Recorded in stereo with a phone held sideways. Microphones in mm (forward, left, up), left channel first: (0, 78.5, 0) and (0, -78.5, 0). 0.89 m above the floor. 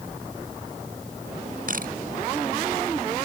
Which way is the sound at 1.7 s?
60° right (ahead or behind).